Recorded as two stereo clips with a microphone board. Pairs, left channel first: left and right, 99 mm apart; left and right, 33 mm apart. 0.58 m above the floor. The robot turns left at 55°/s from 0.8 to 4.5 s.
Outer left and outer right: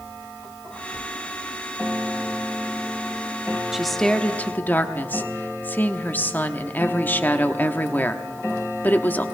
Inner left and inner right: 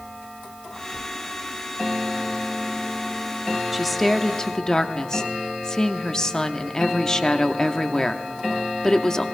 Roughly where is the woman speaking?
Behind.